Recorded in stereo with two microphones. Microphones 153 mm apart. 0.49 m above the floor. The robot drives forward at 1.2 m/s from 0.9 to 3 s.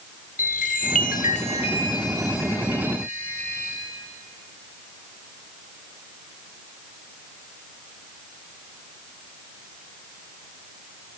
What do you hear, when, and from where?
0.4 s a chime: 60° left (ahead or behind), 0.7 m; by 3.8 s 15° left (ahead or behind), 2.5 m